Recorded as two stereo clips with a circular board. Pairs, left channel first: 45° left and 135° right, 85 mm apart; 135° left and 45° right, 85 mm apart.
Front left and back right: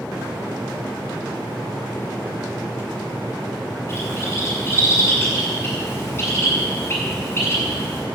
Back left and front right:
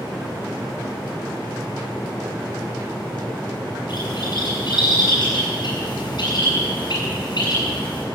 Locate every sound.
3.9 s a bird: 105° left, 7 m